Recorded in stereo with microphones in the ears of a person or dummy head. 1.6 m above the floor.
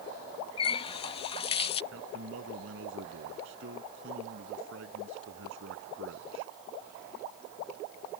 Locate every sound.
0.6 s a running tap: 30° left (ahead or behind)
1.9 s a man speaking: 75° right (ahead or behind)